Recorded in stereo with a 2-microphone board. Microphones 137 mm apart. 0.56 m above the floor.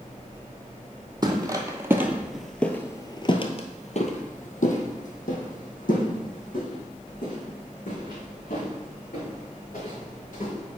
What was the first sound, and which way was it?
Footsteps, 30° right (ahead or behind).